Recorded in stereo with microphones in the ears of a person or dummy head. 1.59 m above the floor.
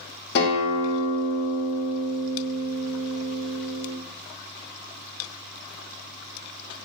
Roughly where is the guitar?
Left.